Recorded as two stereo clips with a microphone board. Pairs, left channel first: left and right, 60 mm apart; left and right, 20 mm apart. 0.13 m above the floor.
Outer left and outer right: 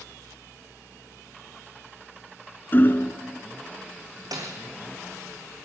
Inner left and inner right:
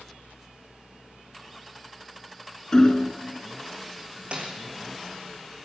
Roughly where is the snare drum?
Right.